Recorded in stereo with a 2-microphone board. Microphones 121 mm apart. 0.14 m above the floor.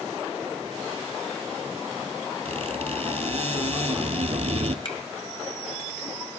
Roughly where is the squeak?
Right.